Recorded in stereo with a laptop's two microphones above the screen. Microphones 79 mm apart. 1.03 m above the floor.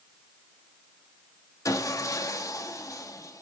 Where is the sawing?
45° left (ahead or behind), 1.3 m.